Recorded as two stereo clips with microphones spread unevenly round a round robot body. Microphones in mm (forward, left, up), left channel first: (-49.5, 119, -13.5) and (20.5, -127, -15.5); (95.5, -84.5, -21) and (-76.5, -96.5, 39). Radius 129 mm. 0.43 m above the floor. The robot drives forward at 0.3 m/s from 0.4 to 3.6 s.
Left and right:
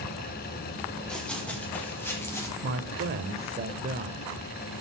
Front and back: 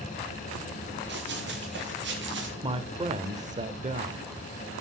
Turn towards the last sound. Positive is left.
turn(degrees=-125)